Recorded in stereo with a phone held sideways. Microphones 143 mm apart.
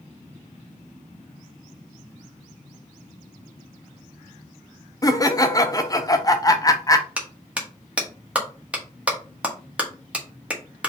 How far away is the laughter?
About 0.6 m.